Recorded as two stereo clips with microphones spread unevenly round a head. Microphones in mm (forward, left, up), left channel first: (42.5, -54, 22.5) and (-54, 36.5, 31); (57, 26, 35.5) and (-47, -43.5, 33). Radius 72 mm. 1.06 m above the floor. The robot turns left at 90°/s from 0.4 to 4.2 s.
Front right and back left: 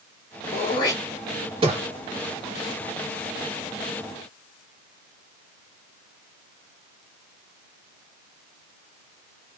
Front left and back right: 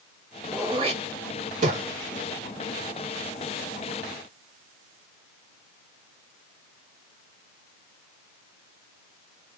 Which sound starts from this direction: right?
Throat clearing, at 0.5 s.